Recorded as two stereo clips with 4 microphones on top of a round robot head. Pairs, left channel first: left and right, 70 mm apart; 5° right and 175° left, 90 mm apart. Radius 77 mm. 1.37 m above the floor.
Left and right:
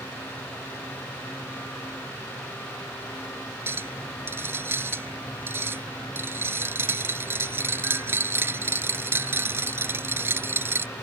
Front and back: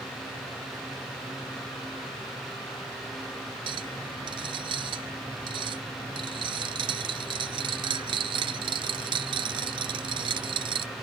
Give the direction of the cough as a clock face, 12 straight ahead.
No cough in this recording.